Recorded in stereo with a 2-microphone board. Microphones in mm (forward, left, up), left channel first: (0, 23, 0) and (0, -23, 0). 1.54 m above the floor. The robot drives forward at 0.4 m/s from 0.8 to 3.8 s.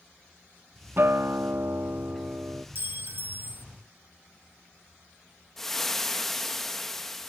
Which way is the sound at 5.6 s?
5° left (ahead or behind).